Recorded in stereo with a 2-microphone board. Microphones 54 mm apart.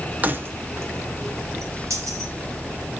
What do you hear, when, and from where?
0.2 s keys jangling: 35° right (ahead or behind), 0.6 m; by 2.3 s 75° right (ahead or behind), 1.6 m